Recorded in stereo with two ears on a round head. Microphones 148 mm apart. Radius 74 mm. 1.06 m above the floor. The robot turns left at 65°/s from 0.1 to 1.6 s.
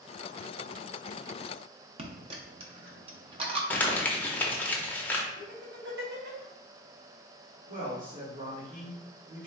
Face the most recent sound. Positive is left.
turn(degrees=-40)  # may be behind; listen again after turning